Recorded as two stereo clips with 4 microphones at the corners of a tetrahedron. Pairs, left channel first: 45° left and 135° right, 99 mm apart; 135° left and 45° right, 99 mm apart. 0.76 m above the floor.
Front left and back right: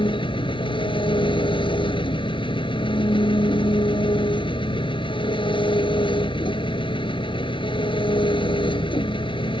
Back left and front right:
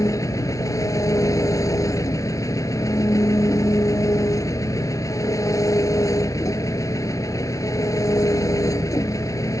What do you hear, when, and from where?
0.0 s an engine running: 80° left